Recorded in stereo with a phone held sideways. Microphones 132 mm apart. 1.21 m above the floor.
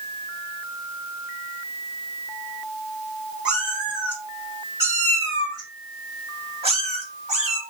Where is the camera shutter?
I don't hear a camera shutter.